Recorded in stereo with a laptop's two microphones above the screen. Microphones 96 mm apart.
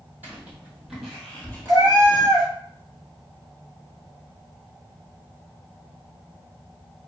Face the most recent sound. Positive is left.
turn(degrees=-45)  # may be behind; listen again after turning